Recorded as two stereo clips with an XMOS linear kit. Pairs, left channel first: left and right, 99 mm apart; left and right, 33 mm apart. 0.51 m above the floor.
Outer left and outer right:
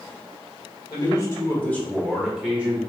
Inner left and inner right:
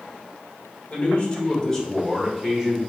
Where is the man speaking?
45° left (ahead or behind), 1.7 m; by 2.8 s 20° right (ahead or behind), 1.7 m.